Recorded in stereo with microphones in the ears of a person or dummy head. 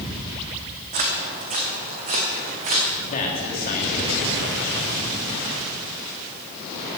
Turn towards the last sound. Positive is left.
turn(degrees=40)  # may be behind; listen again after turning